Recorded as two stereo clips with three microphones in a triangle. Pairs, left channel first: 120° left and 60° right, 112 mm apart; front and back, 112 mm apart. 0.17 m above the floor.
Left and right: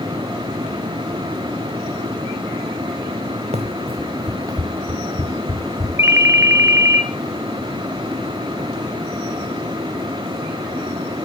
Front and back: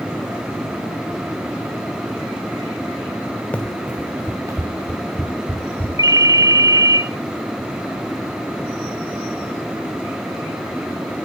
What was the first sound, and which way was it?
Running footsteps, 80° right.